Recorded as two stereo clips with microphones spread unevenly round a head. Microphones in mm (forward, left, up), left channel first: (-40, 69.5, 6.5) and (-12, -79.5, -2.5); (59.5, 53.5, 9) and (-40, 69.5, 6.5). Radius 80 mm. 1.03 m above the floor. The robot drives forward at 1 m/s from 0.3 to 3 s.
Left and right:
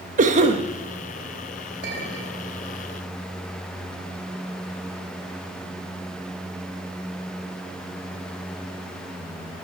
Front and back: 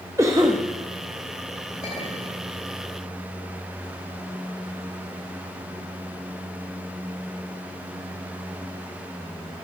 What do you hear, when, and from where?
0.2 s a cough: 120° right, 1.1 m; by 0.6 s 130° right, 1.3 m
1.8 s a clink: 50° right, 3 m; by 2.4 s 60° right, 2.5 m